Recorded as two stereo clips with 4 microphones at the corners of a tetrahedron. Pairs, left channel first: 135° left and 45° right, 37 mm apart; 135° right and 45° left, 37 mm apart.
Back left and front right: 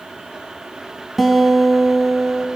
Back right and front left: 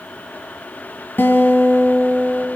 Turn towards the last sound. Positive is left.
turn(degrees=-135)